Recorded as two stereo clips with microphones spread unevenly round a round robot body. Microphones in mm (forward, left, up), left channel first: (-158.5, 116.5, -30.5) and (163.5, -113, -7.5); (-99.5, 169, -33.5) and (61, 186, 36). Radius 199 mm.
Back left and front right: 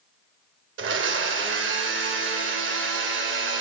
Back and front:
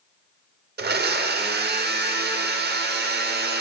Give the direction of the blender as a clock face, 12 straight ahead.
11 o'clock.